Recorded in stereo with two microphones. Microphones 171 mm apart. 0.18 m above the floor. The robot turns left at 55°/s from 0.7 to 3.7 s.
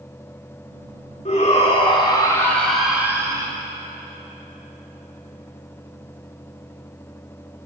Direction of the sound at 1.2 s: 85° left.